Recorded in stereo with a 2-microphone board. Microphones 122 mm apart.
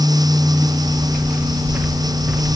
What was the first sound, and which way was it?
Footsteps, 5° right (ahead or behind).